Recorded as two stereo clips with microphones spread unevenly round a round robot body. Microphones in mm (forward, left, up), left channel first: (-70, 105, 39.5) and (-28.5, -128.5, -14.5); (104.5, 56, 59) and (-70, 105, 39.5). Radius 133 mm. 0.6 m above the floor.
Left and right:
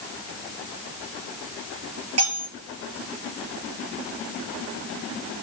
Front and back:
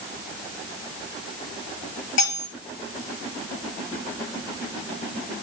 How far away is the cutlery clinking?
About 8.5 m.